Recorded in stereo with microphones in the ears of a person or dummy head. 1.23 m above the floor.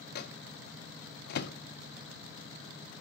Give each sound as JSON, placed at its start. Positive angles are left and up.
{"t": 0.1, "sound": "a microwave", "side_deg": 65, "distance_m": 0.6}